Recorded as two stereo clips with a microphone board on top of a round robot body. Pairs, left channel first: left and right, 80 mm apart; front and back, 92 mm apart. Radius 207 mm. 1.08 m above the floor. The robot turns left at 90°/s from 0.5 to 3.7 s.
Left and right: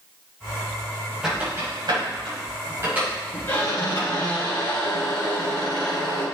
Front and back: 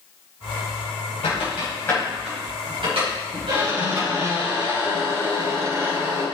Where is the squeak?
5° right, 5 m; by 6.2 s 130° left, 5 m.